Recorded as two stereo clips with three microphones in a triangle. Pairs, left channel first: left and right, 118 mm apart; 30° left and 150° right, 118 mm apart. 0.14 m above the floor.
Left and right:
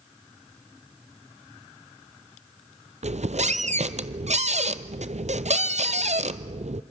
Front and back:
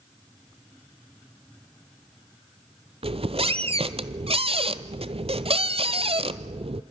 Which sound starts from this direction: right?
A squeak, at 3.0 s.